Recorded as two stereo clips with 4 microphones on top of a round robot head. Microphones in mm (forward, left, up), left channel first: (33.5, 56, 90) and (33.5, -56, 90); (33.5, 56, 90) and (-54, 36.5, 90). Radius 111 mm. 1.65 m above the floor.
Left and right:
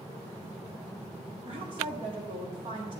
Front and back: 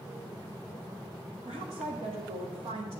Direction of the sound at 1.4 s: 140° right.